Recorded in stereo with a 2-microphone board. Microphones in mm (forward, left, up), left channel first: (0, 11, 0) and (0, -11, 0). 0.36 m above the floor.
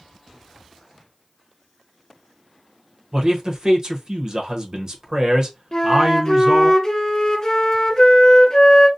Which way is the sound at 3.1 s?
40° right (ahead or behind).